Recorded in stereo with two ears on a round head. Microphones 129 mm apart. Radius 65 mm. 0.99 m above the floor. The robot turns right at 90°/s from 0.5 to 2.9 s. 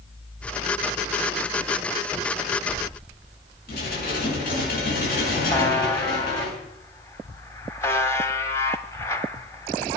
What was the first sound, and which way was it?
Dishes clattering, 65° left (ahead or behind).